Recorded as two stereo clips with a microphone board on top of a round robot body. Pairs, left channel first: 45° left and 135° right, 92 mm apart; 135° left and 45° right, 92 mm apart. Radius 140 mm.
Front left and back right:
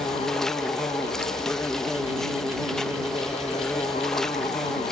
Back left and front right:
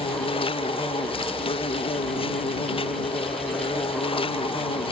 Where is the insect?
130° left.